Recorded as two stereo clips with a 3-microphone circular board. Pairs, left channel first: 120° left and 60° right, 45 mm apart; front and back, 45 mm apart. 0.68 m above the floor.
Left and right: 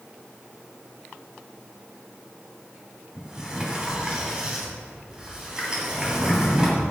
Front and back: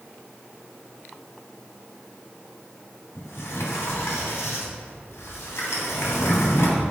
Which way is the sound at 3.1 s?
10° left.